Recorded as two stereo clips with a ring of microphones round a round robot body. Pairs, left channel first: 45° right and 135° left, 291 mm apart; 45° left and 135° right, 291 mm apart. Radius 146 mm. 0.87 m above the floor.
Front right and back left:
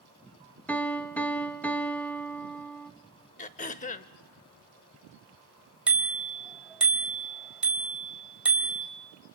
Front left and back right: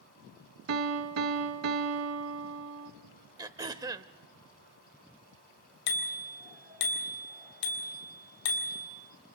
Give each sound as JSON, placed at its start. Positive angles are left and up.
{"t": 0.7, "sound": "a piano", "azimuth_deg": -130, "distance_m": 1.4}
{"t": 3.4, "sound": "throat clearing", "azimuth_deg": -70, "distance_m": 0.6}
{"t": 5.9, "sound": "a bicycle bell", "azimuth_deg": 50, "distance_m": 3.0}